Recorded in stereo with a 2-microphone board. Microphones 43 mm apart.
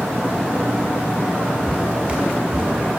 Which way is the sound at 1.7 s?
30° right (ahead or behind).